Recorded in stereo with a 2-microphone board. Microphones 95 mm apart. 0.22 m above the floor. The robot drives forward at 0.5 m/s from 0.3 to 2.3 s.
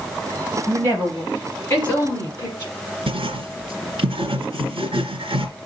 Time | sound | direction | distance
0.7 | a woman speaking | 25° left (ahead or behind) | 5.5 m
3.1 | writing | 65° right (ahead or behind) | 2.5 m